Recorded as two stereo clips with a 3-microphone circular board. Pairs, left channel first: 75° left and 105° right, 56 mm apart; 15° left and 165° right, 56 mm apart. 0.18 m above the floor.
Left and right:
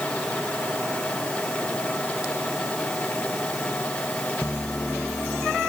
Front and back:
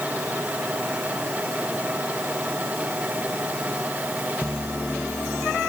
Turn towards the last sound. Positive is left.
No sound to turn to.